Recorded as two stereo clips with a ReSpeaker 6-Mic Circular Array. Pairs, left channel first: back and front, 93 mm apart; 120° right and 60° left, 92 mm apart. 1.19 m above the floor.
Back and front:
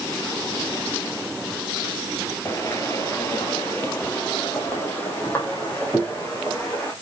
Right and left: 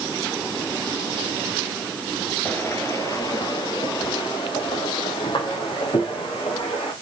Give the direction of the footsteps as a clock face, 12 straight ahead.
6 o'clock.